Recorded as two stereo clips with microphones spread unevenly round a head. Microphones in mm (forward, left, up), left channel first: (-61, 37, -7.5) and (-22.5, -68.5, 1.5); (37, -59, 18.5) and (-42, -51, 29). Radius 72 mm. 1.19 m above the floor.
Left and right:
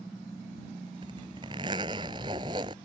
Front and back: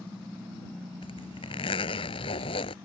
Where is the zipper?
5° right.